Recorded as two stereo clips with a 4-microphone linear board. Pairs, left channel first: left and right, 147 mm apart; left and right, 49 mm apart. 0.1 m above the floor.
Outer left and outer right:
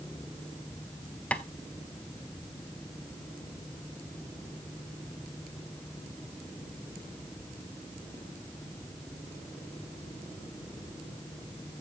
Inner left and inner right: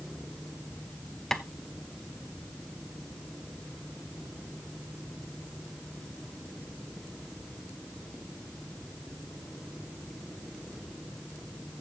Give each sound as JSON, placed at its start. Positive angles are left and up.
{"t": 1.3, "sound": "tapping", "side_deg": 10, "distance_m": 0.6}